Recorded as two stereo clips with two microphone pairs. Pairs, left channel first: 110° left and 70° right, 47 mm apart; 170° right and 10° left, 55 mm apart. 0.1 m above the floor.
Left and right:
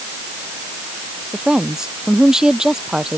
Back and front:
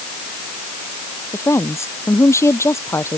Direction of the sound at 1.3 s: 150° right.